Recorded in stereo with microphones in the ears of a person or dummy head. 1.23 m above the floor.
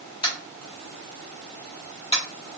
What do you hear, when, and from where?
0.2 s tapping: 30° left (ahead or behind), 0.9 m